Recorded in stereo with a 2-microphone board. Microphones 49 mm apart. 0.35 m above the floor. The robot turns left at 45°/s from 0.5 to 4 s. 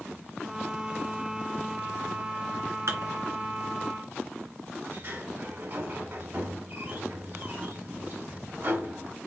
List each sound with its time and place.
2.9 s dishes clattering: 75° right (ahead or behind), 2.5 m; by 3.1 s 70° right (ahead or behind), 2.5 m
4.8 s a sliding door: 45° right (ahead or behind), 2 m